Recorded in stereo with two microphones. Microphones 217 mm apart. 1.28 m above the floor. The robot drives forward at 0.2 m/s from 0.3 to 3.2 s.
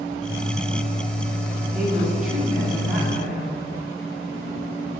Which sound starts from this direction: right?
A woman speaking, at 1.7 s.